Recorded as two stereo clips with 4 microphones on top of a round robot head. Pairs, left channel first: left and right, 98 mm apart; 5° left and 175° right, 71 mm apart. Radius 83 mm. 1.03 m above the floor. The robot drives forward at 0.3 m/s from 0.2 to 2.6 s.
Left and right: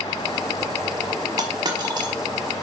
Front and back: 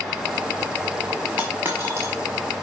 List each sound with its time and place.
1.4 s a dropped coin: 105° right, 0.9 m; by 2.1 s 135° right, 1.0 m